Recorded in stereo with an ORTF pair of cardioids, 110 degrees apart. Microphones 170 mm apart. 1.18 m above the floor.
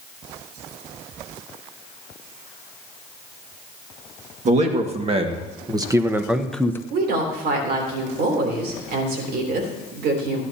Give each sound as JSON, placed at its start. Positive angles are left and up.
{"t": 4.5, "sound": "a man speaking", "azimuth_deg": -45, "distance_m": 2.0}
{"t": 6.9, "sound": "a woman speaking", "azimuth_deg": -70, "distance_m": 3.5}